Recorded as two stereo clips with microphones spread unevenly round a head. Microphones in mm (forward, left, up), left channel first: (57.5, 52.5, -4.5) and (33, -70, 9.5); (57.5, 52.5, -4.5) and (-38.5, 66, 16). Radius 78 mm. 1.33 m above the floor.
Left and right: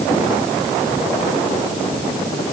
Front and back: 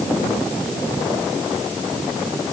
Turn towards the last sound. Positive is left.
No sound to turn to.